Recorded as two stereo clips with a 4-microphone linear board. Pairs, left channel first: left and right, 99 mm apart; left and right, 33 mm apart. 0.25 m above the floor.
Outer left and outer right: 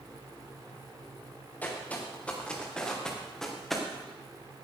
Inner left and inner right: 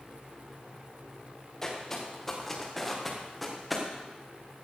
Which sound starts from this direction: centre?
Footsteps, at 1.6 s.